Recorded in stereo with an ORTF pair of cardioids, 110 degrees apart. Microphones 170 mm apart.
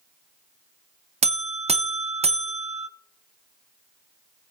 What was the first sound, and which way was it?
A buzzer, 40° right.